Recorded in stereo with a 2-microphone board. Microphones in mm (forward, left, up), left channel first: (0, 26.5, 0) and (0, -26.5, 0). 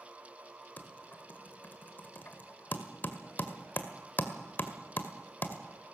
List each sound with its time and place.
0.8 s typing on a keyboard: 40° left (ahead or behind), 1.8 m